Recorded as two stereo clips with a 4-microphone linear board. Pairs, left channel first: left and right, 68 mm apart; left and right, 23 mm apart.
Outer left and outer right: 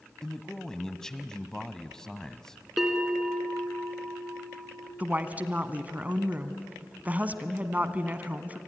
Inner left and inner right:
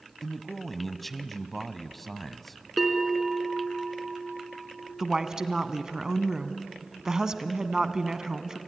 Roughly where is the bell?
Centre.